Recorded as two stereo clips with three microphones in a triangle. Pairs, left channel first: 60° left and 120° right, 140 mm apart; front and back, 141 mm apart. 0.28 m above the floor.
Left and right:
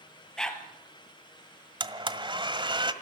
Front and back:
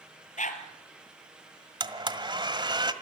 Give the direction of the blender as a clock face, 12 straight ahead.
5 o'clock.